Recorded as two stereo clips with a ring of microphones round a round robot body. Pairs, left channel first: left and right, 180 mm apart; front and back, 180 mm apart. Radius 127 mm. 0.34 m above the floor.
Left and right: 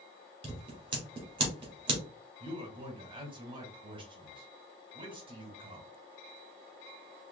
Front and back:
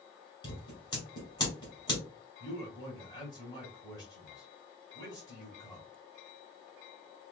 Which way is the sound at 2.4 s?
50° right.